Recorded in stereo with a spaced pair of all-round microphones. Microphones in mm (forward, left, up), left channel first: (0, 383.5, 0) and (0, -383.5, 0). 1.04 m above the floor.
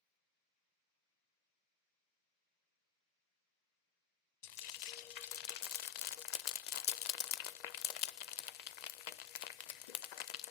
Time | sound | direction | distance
4.4 | frying | 65° left (ahead or behind) | 0.5 m